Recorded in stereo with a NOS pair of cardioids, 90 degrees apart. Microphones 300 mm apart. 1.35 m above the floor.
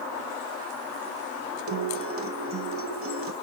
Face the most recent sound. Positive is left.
turn(degrees=-45)